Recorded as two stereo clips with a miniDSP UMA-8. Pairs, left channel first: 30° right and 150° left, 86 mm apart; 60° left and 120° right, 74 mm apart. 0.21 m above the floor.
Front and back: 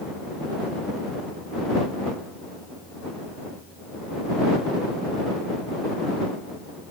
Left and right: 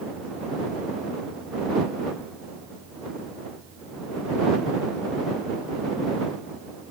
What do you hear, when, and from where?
Only background noise.